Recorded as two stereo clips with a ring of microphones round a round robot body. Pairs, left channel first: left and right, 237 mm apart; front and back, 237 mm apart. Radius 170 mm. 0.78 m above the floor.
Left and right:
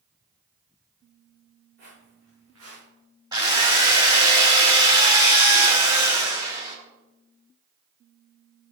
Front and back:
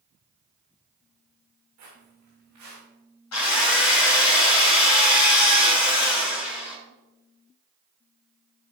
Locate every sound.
1.8 s footsteps: 155° right, 4.5 m; by 2.9 s 140° right, 4.5 m
3.3 s a drill: 15° right, 4 m